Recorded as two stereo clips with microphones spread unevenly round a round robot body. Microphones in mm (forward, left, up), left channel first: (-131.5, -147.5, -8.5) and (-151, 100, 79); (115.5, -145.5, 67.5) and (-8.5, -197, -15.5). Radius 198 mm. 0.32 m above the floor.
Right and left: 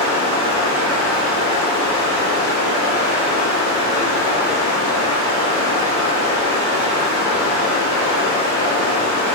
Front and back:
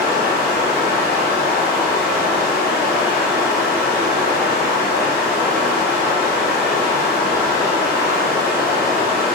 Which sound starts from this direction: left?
Running water, at 0.0 s.